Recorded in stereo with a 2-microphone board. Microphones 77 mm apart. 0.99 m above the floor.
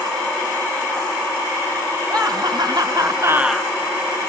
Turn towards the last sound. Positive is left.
turn(degrees=15)  # may be behind; listen again after turning